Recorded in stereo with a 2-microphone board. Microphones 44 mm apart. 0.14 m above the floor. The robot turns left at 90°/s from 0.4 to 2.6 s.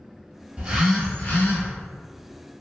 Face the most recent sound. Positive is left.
turn(degrees=25)